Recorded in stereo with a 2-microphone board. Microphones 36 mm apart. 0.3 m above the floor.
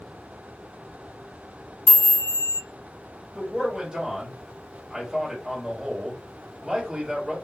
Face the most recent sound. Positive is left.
turn(degrees=-15)  # may be behind; listen again after turning